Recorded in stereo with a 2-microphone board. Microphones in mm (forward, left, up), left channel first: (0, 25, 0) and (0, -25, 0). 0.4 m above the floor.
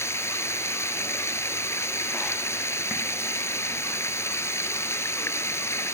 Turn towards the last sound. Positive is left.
turn(degrees=60)  # may be behind; listen again after turning